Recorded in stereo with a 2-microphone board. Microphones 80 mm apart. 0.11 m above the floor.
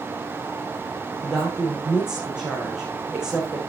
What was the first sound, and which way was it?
A woman speaking, 10° right (ahead or behind).